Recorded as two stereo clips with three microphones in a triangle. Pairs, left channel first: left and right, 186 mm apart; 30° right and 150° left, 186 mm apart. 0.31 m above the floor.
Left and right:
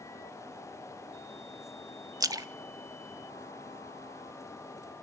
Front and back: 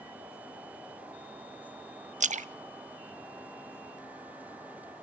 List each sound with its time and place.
2.2 s a splash: 160° right, 0.6 m